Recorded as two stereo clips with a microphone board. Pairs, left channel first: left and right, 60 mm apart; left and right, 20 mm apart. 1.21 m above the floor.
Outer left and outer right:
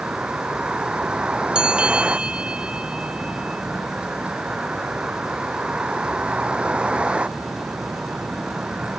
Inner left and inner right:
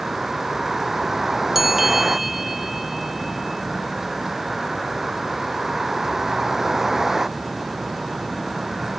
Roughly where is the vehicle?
Centre.